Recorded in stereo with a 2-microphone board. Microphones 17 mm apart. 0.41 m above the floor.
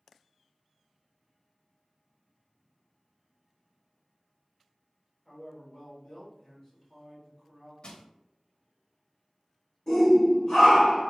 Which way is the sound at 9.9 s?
40° left (ahead or behind).